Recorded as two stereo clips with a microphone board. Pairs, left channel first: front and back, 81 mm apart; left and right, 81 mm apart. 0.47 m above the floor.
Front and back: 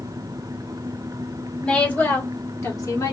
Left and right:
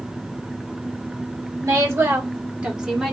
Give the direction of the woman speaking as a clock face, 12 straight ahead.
2 o'clock.